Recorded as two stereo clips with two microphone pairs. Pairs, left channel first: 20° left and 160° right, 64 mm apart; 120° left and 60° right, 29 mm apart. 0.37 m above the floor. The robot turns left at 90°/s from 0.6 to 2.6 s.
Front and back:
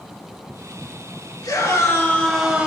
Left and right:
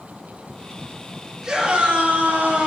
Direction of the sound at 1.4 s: 20° left.